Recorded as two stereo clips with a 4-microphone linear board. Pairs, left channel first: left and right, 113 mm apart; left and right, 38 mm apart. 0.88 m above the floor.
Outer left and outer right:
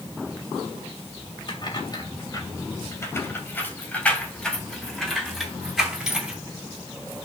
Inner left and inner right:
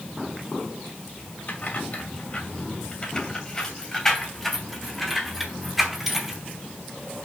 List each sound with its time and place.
1.5 s keys jangling: 45° left (ahead or behind), 2.5 m; by 6.4 s 10° right (ahead or behind), 4.5 m